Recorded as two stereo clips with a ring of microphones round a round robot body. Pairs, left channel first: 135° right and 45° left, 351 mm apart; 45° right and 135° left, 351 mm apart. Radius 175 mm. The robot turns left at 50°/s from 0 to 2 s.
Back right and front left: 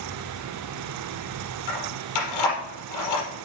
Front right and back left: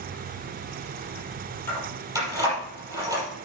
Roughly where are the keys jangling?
Behind right.